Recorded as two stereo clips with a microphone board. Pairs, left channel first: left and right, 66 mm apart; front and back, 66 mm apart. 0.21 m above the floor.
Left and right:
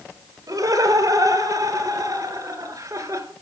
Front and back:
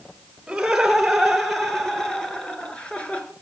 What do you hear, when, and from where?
0.5 s laughter: 95° right, 4 m; by 3.3 s 65° right, 3.5 m